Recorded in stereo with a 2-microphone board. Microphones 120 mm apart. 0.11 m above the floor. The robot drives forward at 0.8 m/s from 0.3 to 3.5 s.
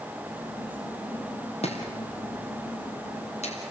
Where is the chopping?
60° left (ahead or behind), 4 m; by 3.6 s 65° left (ahead or behind), 4 m.